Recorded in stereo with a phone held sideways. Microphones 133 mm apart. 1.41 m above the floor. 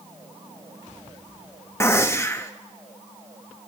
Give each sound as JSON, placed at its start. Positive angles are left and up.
{"t": 1.8, "sound": "a gunshot", "side_deg": 20, "distance_m": 0.8}